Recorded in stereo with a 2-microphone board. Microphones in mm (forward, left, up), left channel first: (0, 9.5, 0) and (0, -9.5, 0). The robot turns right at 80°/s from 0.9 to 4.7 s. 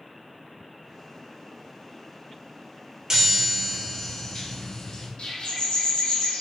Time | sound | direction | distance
3.1 | a chime | 50° right | 0.9 m
5.2 | a bird | 60° left (ahead or behind) | 0.8 m